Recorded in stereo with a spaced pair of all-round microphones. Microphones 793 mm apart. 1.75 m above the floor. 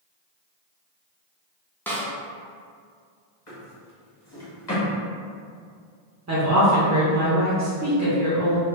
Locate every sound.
1.9 s a snare drum: 5° left (ahead or behind), 0.6 m
3.5 s a drawer: 20° left (ahead or behind), 1.3 m
6.3 s a woman speaking: 25° right (ahead or behind), 0.6 m